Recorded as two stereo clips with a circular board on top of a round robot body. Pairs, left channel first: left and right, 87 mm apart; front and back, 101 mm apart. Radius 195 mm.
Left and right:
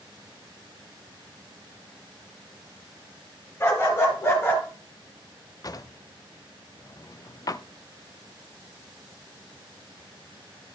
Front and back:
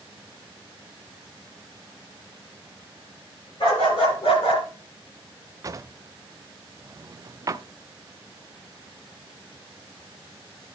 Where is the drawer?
130° left, 0.6 m.